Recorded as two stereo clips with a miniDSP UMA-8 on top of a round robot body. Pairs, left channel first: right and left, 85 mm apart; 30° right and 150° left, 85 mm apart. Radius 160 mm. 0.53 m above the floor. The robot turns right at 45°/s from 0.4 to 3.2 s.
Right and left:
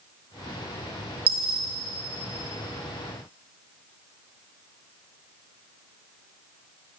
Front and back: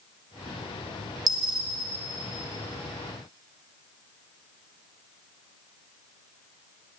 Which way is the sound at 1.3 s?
105° left.